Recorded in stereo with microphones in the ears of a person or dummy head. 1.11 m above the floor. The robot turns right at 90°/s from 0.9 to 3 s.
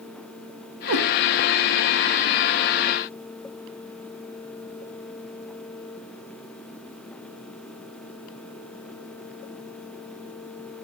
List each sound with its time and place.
0.9 s a cat meowing: 80° right, 2 m; by 1.1 s 75° right (ahead or behind), 2 m